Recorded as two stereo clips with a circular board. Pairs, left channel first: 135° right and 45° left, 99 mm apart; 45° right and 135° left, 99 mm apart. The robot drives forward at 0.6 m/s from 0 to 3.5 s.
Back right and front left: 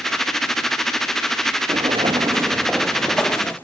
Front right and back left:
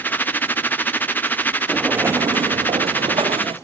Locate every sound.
1.7 s footsteps: 45° left, 1.0 m; by 3.5 s 155° left, 1.8 m